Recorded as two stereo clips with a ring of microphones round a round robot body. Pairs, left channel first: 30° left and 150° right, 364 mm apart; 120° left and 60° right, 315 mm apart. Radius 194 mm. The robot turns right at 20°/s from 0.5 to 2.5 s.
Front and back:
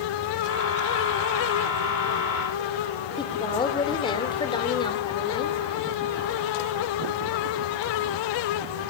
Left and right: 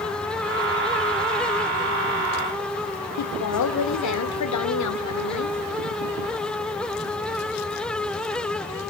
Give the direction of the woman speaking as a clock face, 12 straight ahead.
8 o'clock.